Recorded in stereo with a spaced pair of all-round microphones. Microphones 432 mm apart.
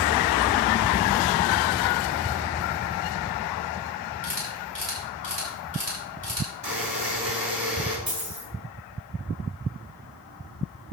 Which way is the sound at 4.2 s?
50° right (ahead or behind).